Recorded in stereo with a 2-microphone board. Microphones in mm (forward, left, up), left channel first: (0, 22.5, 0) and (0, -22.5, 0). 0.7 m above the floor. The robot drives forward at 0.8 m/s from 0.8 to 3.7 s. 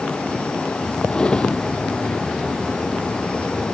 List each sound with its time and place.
1.1 s a drawer: 20° left (ahead or behind)